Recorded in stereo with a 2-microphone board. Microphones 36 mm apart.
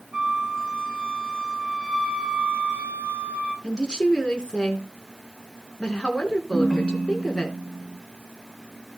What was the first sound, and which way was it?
A flute, 15° right (ahead or behind).